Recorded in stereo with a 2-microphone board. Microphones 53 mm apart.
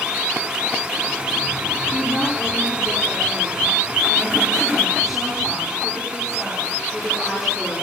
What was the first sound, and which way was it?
A woman speaking, 5° left (ahead or behind).